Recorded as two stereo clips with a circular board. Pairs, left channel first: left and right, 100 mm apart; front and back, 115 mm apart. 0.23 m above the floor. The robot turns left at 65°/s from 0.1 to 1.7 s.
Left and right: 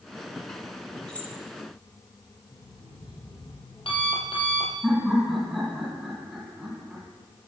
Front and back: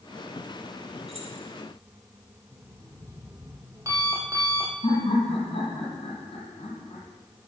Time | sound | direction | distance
1.1 | keys jangling | 170° left | 2.5 m
2.5 | an alarm clock | 120° left | 3 m
4.8 | laughter | 5° right | 2.5 m